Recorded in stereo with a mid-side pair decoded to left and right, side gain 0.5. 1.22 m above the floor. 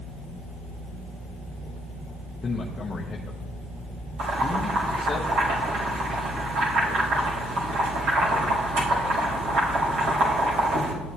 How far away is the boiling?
About 4 m.